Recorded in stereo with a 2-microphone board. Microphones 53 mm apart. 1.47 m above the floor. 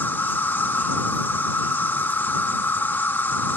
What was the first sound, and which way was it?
An insect, 40° left (ahead or behind).